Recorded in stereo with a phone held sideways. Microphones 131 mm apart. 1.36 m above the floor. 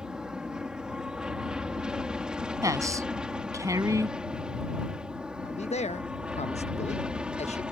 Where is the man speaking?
55° left (ahead or behind).